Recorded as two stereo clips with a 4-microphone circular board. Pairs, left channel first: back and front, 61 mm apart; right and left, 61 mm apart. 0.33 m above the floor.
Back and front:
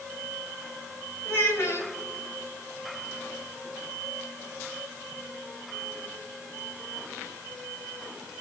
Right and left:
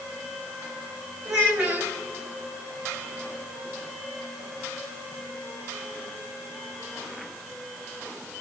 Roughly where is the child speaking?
Behind left.